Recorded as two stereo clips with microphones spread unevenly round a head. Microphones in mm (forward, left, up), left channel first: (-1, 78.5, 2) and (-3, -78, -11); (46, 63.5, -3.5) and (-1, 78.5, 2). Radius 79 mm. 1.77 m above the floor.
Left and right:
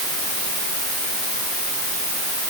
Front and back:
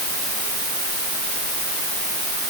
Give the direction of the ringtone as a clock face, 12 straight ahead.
No ringtone in this recording.